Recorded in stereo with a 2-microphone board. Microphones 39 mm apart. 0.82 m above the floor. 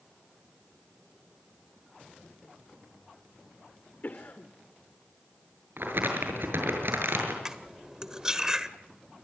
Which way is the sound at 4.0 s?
55° left (ahead or behind).